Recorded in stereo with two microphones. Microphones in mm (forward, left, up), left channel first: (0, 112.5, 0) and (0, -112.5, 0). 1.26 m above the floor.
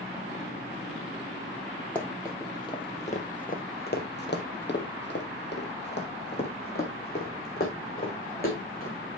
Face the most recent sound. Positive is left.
turn(degrees=40)  # may be behind; listen again after turning